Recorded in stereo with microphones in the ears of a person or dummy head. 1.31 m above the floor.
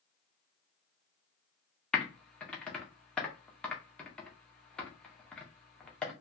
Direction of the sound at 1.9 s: 5° left (ahead or behind).